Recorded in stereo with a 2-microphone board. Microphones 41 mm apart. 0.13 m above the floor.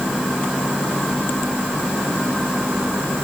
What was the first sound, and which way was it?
Only background noise.